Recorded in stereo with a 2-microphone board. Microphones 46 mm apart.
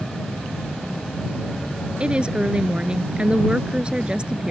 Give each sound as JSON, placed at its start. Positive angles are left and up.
{"t": 2.0, "sound": "a woman speaking", "side_deg": -25}